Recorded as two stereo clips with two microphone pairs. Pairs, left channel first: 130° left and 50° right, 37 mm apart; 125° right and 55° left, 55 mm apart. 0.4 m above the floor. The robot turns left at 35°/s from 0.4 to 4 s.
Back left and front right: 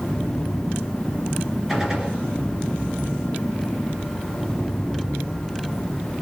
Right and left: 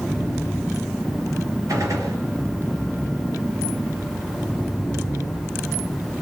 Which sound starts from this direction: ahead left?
A gunshot, at 1.7 s.